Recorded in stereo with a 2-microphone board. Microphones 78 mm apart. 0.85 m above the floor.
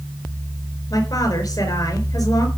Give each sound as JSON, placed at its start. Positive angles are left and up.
{"t": 0.9, "sound": "a woman speaking", "side_deg": 50, "distance_m": 4.0}